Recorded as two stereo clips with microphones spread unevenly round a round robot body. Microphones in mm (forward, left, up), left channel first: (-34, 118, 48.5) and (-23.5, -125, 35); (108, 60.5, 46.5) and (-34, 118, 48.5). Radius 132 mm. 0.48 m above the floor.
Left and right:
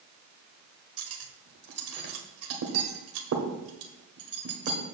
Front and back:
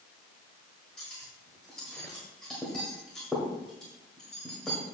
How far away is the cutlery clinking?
About 1.3 m.